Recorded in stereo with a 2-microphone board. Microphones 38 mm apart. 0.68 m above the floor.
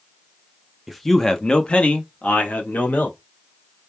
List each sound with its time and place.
0.9 s a man speaking: centre (ahead or behind), 0.7 m; by 3.2 s 45° left (ahead or behind), 1.7 m